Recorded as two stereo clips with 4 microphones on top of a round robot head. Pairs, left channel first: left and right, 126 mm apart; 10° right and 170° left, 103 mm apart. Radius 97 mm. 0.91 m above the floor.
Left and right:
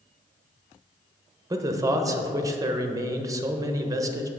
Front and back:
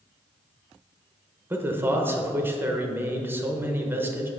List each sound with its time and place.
1.5 s a man speaking: 130° right, 0.9 m